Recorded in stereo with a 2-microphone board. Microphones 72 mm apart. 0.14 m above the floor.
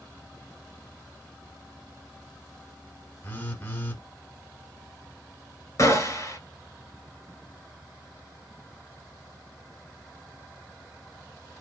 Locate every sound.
3.2 s a phone buzzing: 25° left (ahead or behind), 1.2 m
5.8 s a gunshot: 45° left (ahead or behind), 1.2 m